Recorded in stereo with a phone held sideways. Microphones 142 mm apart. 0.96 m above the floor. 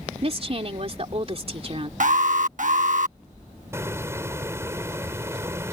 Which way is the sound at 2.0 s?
65° right (ahead or behind).